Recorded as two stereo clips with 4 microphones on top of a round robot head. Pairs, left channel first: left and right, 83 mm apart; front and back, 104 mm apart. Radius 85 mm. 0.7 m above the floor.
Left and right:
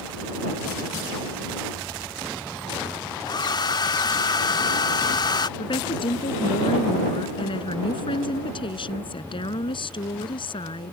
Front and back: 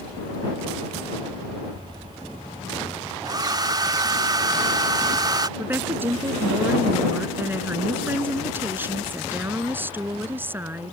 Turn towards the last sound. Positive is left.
turn(degrees=105)